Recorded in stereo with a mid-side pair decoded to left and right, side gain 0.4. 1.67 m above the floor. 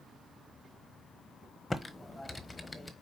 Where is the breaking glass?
No breaking glass in this recording.